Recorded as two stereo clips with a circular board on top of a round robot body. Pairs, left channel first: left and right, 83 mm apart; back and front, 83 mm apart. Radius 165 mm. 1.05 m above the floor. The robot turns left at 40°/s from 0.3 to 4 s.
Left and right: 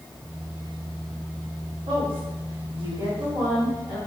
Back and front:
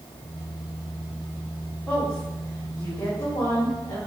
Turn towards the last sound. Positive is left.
turn(degrees=-170)